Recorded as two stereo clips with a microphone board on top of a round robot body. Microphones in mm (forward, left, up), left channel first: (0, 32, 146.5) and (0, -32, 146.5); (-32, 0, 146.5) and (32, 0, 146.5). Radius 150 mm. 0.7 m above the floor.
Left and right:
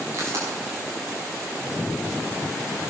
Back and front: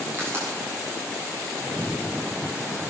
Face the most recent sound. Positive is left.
turn(degrees=-50)